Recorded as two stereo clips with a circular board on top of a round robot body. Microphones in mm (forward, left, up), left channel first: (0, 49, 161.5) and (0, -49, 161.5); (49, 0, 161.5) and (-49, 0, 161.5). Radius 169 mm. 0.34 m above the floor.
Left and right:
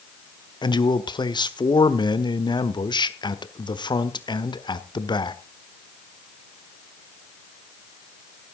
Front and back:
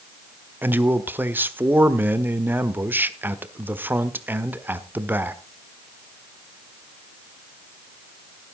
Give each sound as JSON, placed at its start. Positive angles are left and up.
{"t": 0.6, "sound": "a man speaking", "azimuth_deg": 115, "distance_m": 1.5}